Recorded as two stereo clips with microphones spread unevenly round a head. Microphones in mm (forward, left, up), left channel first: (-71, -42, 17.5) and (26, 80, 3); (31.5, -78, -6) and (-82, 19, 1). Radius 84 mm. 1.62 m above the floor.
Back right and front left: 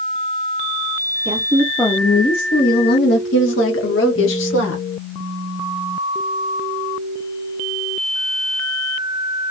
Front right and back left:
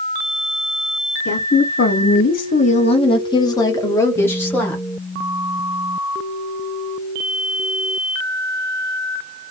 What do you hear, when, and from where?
1.2 s a woman speaking: 15° right, 0.7 m; by 4.8 s 120° right, 1.7 m